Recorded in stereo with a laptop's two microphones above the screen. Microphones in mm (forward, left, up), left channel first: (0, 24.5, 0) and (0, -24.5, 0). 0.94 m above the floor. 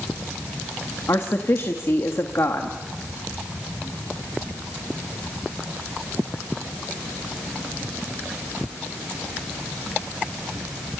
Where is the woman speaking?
65° left (ahead or behind), 1.4 m.